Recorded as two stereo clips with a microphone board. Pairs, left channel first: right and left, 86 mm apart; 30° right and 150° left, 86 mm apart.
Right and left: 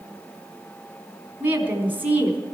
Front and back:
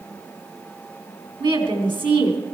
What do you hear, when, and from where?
1.4 s a woman speaking: 160° left, 4 m